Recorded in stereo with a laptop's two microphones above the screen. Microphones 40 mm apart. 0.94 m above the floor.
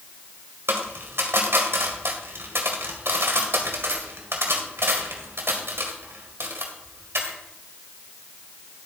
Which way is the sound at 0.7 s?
75° right (ahead or behind).